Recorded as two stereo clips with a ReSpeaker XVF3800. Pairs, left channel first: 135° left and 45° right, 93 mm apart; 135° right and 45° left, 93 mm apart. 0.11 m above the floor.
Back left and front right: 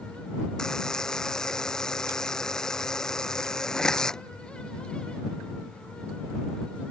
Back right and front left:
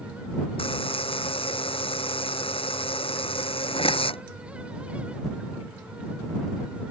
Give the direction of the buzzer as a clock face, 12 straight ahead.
5 o'clock.